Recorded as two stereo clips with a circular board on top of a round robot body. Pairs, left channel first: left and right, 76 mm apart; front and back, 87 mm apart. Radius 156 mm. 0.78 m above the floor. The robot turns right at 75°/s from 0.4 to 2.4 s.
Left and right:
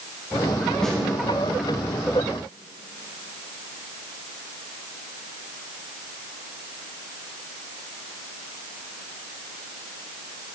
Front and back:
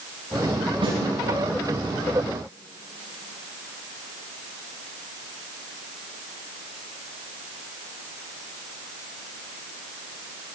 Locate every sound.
0.8 s a snare drum: 170° left, 10 m; by 1.0 s 175° right, 10 m